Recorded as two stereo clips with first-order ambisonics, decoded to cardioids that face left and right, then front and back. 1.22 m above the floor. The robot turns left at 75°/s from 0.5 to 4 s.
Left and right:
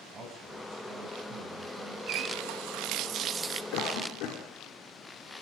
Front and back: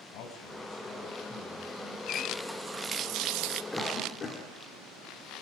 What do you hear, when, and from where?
0.1 s a man speaking: 20° right, 7 m; by 2.0 s 130° right, 7 m
2.1 s a running tap: 60° right, 1.0 m; by 3.6 s 175° right, 1.0 m
3.7 s a cough: 85° left, 4 m; by 4.4 s 65° left, 4 m